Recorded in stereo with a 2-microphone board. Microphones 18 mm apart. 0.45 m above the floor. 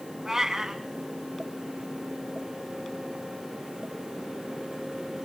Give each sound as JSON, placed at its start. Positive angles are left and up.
{"t": 0.2, "sound": "a cat meowing", "side_deg": -30, "distance_m": 1.7}